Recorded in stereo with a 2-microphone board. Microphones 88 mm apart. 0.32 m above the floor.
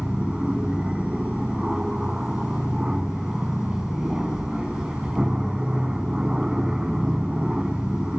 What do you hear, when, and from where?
0.0 s an aircraft: 10° right (ahead or behind)